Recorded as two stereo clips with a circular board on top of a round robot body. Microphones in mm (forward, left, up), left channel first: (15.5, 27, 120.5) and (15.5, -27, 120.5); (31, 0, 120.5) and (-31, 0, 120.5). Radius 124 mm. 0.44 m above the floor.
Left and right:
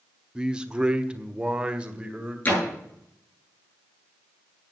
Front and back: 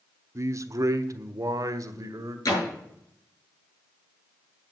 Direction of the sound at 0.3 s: 160° right.